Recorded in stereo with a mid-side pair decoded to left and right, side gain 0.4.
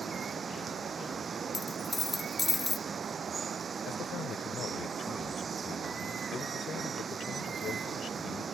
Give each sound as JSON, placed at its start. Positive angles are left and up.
{"t": 0.0, "sound": "running water", "azimuth_deg": -45}
{"t": 1.5, "sound": "a dropped coin", "azimuth_deg": 30}
{"t": 3.9, "sound": "a man speaking", "azimuth_deg": 65}